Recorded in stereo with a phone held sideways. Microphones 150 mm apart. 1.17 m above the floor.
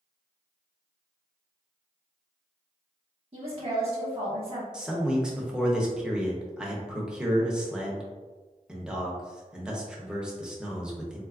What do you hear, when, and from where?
3.3 s a woman speaking: 45° right (ahead or behind), 1.1 m
4.7 s a man speaking: 5° right (ahead or behind), 0.8 m